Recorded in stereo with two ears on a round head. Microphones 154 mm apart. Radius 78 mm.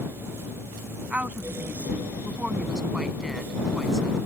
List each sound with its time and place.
1.1 s a woman speaking: 10° right (ahead or behind); by 4.2 s centre (ahead or behind)